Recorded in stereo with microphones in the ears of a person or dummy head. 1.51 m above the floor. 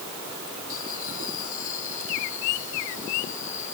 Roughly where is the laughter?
Left.